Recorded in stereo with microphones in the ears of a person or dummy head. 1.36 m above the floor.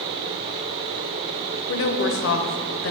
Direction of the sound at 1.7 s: 60° left (ahead or behind).